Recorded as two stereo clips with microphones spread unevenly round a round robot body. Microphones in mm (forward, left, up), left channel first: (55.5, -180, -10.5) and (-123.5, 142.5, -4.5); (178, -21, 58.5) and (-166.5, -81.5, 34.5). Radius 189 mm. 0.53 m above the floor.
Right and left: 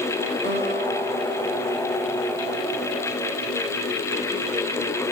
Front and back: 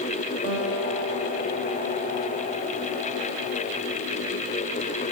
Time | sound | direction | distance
0.4 | a guitar | 175° right | 7 m